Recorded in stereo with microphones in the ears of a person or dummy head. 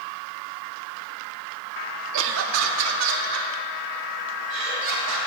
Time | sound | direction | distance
2.1 | laughter | 65° right (ahead or behind) | 0.6 m